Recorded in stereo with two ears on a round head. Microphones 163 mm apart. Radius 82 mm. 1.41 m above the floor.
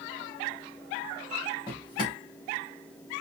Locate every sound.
1.7 s a drawer: 25° left (ahead or behind), 1.7 m